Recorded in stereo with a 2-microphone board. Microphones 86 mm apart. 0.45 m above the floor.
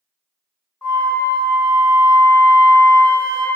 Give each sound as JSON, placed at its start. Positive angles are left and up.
{"t": 0.8, "sound": "a flute", "side_deg": 25, "distance_m": 0.9}